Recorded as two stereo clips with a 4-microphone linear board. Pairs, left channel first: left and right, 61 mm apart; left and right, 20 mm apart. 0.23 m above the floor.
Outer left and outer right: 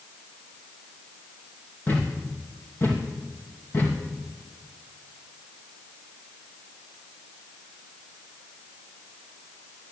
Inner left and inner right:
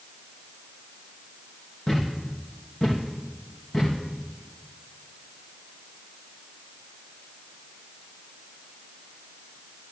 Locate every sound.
1.9 s a thud: 40° left (ahead or behind), 3.5 m